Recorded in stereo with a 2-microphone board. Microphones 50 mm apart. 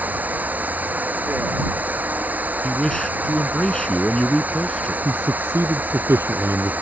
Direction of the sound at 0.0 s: 35° right (ahead or behind).